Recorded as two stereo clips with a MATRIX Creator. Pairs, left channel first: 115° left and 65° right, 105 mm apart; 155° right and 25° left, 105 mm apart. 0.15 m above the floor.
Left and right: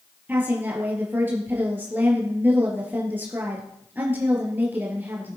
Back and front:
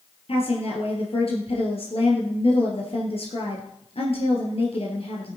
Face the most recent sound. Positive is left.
turn(degrees=-140)